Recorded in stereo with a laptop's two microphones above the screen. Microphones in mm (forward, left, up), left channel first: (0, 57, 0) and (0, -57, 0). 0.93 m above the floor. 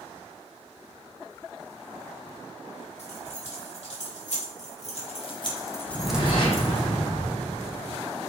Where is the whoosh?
50° left (ahead or behind), 4 m.